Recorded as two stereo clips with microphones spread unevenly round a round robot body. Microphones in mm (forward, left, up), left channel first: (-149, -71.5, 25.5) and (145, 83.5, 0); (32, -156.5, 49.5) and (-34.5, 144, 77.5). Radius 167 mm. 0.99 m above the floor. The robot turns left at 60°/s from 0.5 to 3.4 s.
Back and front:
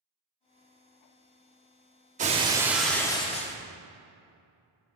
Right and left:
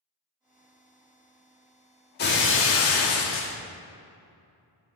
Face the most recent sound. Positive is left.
turn(degrees=-105)